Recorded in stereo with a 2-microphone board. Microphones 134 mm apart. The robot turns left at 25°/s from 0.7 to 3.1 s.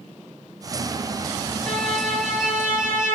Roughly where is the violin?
Ahead.